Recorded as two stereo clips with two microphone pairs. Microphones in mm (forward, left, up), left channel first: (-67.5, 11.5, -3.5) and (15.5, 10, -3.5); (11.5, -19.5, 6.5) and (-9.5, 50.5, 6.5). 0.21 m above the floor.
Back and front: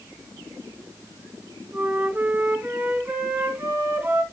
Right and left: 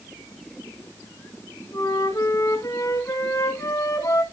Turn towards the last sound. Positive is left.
turn(degrees=-65)